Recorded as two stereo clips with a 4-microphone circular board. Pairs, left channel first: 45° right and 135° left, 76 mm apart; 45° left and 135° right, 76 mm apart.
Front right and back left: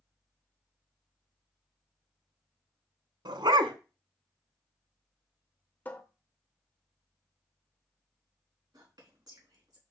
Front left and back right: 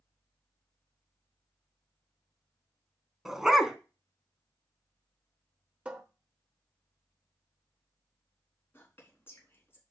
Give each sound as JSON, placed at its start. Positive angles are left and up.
{"t": 3.2, "sound": "a dog barking", "azimuth_deg": 140, "distance_m": 0.8}
{"t": 5.8, "sound": "a cupboard door", "azimuth_deg": -80, "distance_m": 0.8}
{"t": 8.7, "sound": "whispering", "azimuth_deg": 105, "distance_m": 4.0}